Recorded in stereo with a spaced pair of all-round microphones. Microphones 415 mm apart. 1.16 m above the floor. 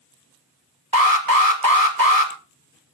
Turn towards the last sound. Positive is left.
turn(degrees=-55)  # may be behind; listen again after turning